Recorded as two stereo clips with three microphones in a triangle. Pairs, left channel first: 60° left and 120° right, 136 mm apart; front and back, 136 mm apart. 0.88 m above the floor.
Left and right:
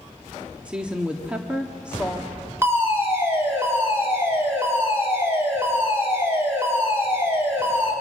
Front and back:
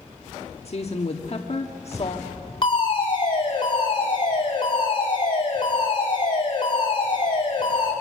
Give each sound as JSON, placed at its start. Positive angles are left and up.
{"t": 0.7, "sound": "a woman speaking", "azimuth_deg": -40, "distance_m": 1.4}
{"t": 2.6, "sound": "a fire alarm", "azimuth_deg": -50, "distance_m": 6.0}